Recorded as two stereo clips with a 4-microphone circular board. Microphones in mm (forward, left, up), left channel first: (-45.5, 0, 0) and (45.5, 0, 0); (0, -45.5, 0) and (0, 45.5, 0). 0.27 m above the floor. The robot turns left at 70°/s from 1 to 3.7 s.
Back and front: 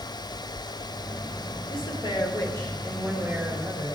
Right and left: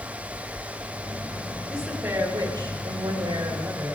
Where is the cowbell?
I don't hear a cowbell.